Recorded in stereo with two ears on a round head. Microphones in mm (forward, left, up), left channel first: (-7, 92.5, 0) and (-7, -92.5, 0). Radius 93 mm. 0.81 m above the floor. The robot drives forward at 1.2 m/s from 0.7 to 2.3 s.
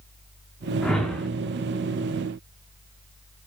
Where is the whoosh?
5° left (ahead or behind), 1.3 m.